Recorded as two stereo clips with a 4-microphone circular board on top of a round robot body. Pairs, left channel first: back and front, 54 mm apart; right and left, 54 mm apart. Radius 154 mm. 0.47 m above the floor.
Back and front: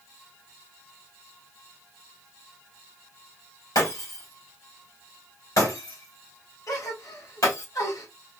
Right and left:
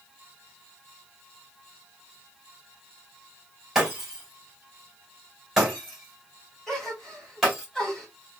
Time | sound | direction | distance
3.8 | breaking glass | 175° left | 2.5 m
6.7 | a gasp | 170° right | 3 m